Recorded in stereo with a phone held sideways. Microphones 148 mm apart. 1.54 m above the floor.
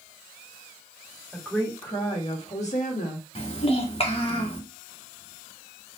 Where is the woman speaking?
10° left (ahead or behind), 1.6 m; by 3.2 s 70° left (ahead or behind), 1.5 m.